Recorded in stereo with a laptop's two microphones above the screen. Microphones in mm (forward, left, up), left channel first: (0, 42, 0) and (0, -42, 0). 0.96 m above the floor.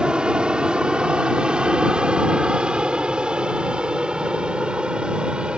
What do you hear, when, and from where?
0.0 s an aircraft: 10° right (ahead or behind)